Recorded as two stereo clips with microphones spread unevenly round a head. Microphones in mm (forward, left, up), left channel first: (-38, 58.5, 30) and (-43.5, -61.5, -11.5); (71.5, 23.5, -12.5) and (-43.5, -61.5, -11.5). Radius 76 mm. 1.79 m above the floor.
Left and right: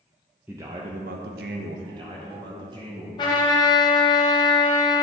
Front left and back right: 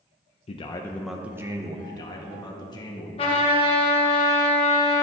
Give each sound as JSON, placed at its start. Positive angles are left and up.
{"t": 0.5, "sound": "a man speaking", "azimuth_deg": 0, "distance_m": 0.5}
{"t": 1.9, "sound": "a man speaking", "azimuth_deg": -25, "distance_m": 1.4}
{"t": 3.2, "sound": "a trumpet", "azimuth_deg": 75, "distance_m": 1.3}